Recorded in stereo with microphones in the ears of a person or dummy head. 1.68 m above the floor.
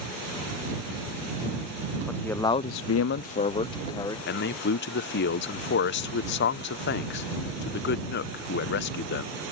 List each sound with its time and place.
2.1 s a man speaking: 5° left (ahead or behind); by 4.2 s 25° left (ahead or behind)
4.3 s a man speaking: 50° left (ahead or behind)